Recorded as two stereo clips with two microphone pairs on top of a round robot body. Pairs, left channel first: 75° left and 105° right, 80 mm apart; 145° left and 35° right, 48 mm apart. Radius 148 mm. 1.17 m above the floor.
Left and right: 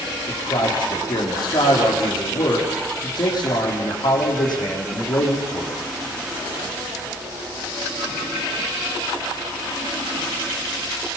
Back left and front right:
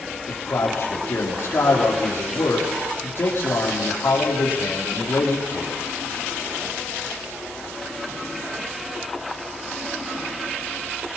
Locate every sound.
0.3 s a man speaking: 105° left, 3.5 m